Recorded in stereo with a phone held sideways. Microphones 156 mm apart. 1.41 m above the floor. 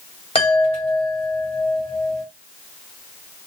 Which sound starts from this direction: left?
A chime, at 0.3 s.